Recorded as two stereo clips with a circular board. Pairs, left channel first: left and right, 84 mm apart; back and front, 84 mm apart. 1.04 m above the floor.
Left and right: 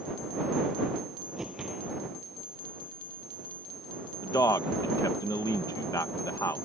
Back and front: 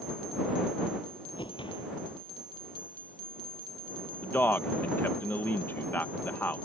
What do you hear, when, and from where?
1.4 s a whoosh: 175° right
4.2 s a man speaking: 120° left